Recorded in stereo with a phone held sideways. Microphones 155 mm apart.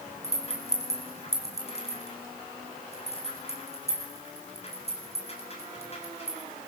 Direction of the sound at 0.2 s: 40° left (ahead or behind).